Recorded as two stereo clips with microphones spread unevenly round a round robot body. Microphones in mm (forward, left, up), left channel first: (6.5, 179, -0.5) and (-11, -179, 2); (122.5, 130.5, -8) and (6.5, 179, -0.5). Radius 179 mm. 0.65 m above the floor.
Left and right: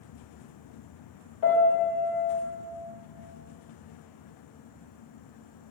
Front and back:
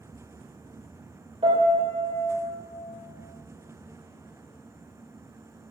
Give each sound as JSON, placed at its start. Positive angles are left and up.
{"t": 1.4, "sound": "a piano", "azimuth_deg": 110, "distance_m": 3.0}